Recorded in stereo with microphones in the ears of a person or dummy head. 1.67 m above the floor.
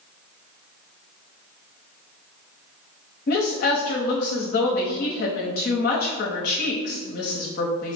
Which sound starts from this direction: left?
A woman speaking, at 3.3 s.